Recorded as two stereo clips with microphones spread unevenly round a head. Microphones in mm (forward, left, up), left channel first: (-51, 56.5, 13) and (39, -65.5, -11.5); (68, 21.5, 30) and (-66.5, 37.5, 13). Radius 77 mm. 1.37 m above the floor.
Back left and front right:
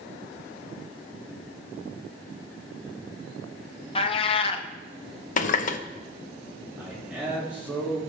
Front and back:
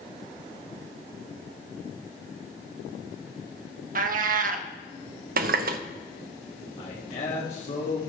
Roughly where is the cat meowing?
Behind.